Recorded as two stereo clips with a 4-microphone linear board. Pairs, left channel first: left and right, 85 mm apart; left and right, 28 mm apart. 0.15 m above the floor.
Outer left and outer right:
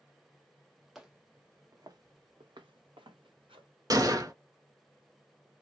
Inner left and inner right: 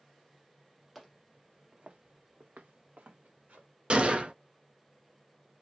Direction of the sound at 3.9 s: 45° right (ahead or behind).